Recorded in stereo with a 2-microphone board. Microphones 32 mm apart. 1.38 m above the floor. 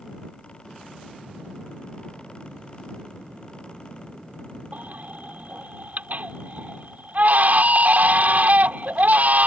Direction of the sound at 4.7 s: 60° right (ahead or behind).